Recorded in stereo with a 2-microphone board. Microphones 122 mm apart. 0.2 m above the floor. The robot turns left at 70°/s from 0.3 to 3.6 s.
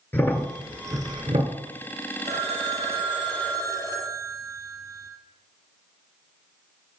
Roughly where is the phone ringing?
Right.